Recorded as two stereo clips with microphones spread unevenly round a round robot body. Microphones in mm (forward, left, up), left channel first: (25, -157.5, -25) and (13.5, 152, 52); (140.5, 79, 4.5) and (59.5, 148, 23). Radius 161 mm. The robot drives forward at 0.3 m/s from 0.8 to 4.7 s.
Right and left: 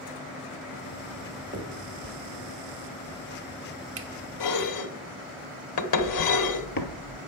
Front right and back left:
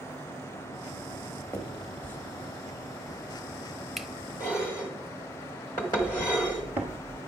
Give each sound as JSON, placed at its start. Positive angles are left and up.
{"t": 1.5, "sound": "a finger snap", "azimuth_deg": 20, "distance_m": 1.5}
{"t": 4.4, "sound": "dishes clattering", "azimuth_deg": -115, "distance_m": 1.0}
{"t": 6.0, "sound": "footsteps", "azimuth_deg": -125, "distance_m": 1.3}